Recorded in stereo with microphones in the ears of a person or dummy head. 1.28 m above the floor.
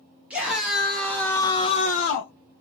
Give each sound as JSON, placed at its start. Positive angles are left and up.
{"t": 0.3, "sound": "a scream", "side_deg": 0, "distance_m": 1.3}